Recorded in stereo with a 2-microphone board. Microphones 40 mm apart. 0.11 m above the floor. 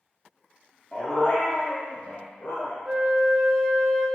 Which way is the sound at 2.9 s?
20° right (ahead or behind).